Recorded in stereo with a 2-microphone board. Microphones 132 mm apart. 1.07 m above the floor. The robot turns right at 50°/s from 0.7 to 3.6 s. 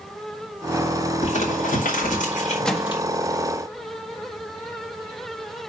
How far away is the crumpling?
About 4.5 m.